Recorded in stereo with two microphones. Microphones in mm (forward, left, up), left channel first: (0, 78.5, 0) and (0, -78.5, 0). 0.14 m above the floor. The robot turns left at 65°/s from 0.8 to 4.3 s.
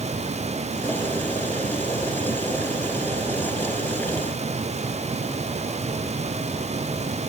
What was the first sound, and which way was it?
Only background noise.